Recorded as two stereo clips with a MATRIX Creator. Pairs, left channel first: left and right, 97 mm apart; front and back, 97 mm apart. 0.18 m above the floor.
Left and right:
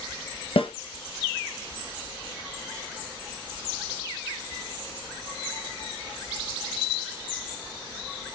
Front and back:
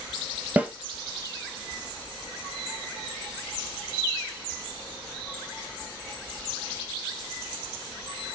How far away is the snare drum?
About 1.1 m.